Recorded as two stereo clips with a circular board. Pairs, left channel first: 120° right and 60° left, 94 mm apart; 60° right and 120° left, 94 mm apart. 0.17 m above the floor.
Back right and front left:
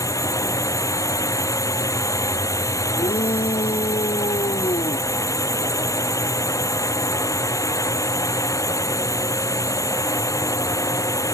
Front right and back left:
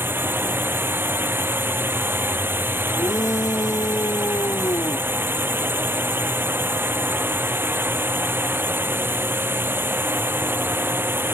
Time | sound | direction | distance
0.0 | a drone | 175° right | ?
3.0 | a shout | 115° right | ?